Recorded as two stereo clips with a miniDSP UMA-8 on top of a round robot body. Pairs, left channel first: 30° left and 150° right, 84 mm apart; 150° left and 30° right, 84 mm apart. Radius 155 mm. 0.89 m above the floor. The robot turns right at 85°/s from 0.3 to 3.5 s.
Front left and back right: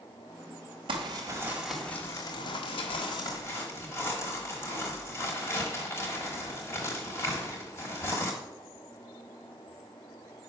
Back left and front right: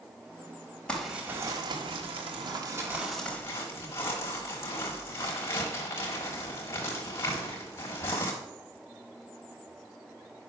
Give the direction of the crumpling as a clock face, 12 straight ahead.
4 o'clock.